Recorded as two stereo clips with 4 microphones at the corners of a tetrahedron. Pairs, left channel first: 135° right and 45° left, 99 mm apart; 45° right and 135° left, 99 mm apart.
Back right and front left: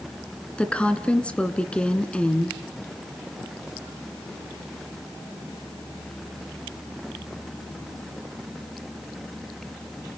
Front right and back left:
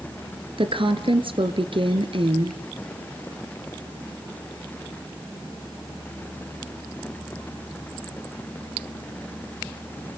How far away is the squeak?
I don't hear a squeak.